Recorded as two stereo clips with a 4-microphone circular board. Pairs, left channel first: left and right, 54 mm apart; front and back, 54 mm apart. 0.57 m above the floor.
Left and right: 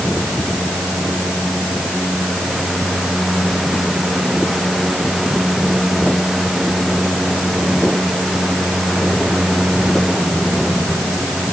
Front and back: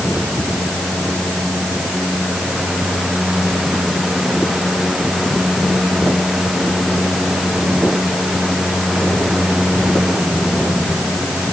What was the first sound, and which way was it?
Only background noise.